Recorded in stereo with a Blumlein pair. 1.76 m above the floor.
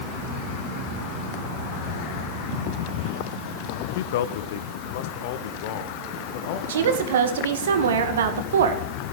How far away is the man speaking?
About 0.7 m.